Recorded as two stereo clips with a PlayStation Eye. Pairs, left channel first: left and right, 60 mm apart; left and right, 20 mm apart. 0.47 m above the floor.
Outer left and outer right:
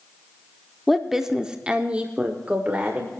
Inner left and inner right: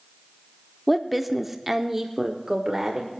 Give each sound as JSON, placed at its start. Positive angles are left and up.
{"t": 0.9, "sound": "a woman speaking", "side_deg": 0, "distance_m": 0.9}